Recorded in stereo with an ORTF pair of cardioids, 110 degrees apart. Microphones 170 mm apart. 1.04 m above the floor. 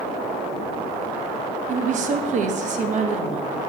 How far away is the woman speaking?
About 0.8 m.